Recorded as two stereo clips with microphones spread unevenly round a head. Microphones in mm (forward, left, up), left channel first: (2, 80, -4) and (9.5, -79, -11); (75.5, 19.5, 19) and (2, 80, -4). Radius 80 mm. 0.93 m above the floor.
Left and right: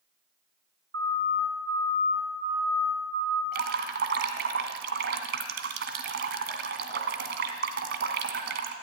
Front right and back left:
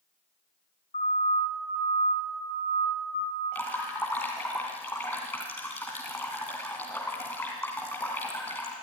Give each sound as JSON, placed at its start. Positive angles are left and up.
{"t": 0.9, "sound": "a siren", "azimuth_deg": -65, "distance_m": 8.0}
{"t": 3.5, "sound": "dripping", "azimuth_deg": -110, "distance_m": 2.0}